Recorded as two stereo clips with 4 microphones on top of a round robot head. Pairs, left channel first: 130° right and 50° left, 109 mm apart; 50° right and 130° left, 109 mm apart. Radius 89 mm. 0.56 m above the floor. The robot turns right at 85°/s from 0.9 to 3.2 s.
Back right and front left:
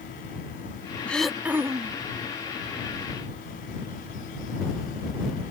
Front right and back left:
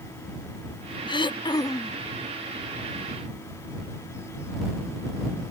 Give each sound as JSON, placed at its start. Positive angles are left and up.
{"t": 1.1, "sound": "throat clearing", "azimuth_deg": -60}